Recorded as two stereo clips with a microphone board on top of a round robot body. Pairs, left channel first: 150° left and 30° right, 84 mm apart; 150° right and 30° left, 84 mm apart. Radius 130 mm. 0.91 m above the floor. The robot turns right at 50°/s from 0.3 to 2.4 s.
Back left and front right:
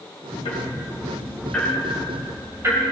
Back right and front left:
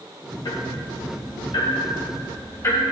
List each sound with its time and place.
0.5 s ticking: 170° left, 2.5 m; by 2.8 s 90° right, 2.5 m